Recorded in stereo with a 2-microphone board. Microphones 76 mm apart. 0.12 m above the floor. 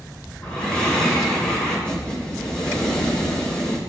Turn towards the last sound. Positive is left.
turn(degrees=15)  # may be behind; listen again after turning